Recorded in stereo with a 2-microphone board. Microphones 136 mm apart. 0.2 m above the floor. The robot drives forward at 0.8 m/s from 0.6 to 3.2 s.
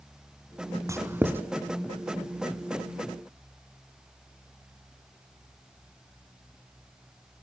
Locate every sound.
0.9 s writing: 20° right (ahead or behind), 0.7 m; by 1.5 s 15° right (ahead or behind), 1.1 m